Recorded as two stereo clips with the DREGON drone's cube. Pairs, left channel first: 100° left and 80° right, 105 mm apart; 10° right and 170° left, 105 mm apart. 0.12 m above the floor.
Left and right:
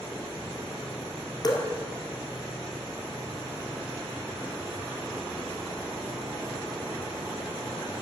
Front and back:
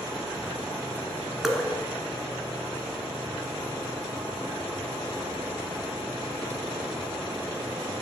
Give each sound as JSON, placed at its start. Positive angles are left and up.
{"t": 1.4, "sound": "dripping", "azimuth_deg": 85, "distance_m": 1.3}